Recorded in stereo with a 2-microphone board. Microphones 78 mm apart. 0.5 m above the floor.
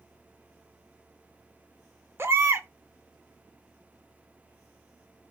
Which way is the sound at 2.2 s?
35° right (ahead or behind).